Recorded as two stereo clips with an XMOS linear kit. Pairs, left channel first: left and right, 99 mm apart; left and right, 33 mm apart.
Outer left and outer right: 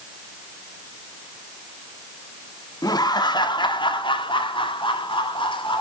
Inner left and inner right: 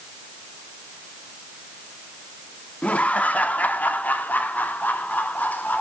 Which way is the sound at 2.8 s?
40° left (ahead or behind).